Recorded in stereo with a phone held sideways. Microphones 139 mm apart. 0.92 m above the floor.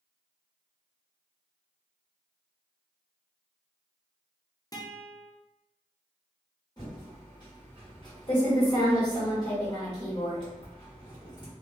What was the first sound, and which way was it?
A guitar, 25° left (ahead or behind).